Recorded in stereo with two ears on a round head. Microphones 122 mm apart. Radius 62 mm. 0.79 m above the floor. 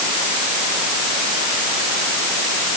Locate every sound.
Only background noise.